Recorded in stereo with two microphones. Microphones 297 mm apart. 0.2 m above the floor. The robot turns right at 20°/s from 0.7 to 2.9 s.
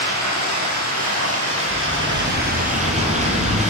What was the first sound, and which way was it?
Running water, 70° right.